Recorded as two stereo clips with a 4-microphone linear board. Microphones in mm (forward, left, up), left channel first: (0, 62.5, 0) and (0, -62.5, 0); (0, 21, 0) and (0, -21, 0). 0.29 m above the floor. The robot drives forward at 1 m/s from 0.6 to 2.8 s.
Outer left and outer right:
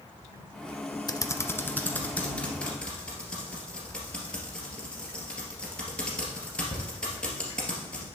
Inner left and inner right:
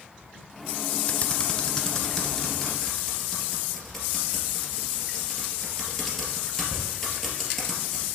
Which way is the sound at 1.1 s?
35° left (ahead or behind).